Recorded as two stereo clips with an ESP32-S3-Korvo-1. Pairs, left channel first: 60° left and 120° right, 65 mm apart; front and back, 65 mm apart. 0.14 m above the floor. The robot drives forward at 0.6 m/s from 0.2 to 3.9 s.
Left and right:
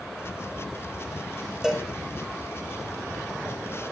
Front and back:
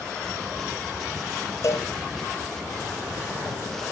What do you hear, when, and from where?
1.6 s a cowbell: 40° right, 3 m; by 1.9 s 45° right, 2.5 m